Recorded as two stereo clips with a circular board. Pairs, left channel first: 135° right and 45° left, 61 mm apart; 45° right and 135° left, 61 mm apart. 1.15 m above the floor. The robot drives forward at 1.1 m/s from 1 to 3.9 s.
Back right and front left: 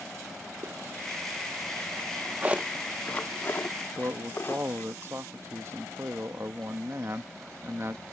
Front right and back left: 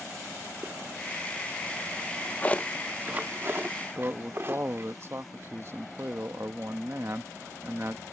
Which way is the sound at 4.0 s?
90° left.